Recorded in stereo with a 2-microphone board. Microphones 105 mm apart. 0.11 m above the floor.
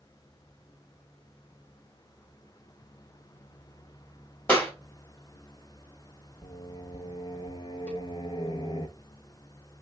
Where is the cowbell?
10° left (ahead or behind), 0.6 m.